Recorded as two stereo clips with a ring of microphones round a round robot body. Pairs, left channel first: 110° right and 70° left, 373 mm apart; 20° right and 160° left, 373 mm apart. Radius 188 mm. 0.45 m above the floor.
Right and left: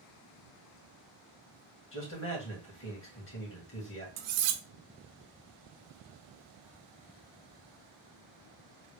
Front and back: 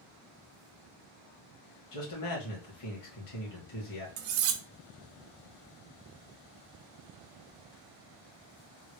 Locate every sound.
1.9 s a man speaking: 55° right, 2 m
4.2 s cutlery clinking: 110° left, 0.5 m